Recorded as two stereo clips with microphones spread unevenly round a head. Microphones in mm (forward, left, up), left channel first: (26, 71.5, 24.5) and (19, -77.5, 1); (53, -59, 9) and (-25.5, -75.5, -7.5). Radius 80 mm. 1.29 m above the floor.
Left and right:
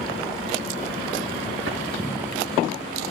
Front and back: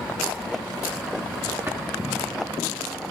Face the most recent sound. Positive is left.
turn(degrees=-105)